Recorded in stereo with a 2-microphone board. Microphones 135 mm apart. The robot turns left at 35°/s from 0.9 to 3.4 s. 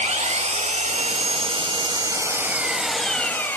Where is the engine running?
110° right, 0.8 m; by 3.6 s 165° left, 0.8 m.